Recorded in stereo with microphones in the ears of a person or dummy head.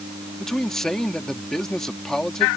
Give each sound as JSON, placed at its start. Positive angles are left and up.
{"t": 0.4, "sound": "a man speaking", "side_deg": 5}